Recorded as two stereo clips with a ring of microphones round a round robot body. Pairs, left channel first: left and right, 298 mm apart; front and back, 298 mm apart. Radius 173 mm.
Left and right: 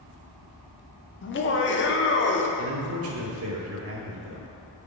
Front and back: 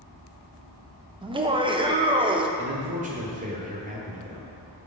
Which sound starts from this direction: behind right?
A man speaking, at 2.6 s.